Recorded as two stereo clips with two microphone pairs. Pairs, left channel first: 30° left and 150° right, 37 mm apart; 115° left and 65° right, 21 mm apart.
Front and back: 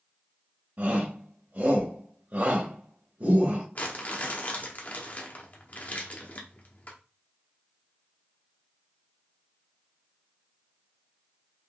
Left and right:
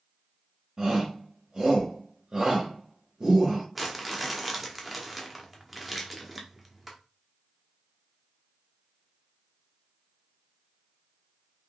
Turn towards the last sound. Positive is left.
turn(degrees=25)